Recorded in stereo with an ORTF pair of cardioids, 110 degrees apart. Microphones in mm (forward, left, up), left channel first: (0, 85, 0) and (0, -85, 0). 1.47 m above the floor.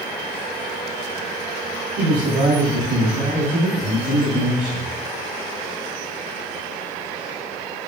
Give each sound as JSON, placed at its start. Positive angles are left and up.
{"t": 2.0, "sound": "a man speaking", "azimuth_deg": -70, "distance_m": 2.0}